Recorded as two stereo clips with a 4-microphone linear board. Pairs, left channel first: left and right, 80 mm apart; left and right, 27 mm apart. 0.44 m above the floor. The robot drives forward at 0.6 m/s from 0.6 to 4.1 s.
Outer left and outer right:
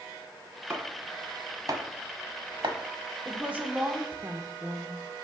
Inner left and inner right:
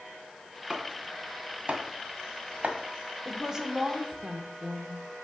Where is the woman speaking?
20° right (ahead or behind), 0.9 m.